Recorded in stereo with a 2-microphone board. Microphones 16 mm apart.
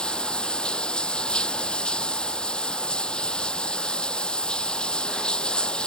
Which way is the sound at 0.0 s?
70° left (ahead or behind).